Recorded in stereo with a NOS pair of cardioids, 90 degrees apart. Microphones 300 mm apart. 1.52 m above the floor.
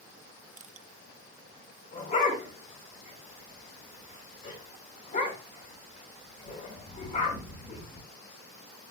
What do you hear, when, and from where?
0.6 s crushing: 25° right, 1.1 m
1.9 s a dog barking: 25° left, 6 m